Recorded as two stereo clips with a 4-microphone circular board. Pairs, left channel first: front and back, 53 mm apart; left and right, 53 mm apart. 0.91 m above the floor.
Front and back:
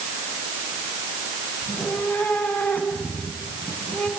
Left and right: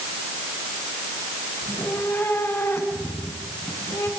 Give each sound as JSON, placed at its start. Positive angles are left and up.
{"t": 1.6, "sound": "a cat meowing", "azimuth_deg": 45, "distance_m": 5.0}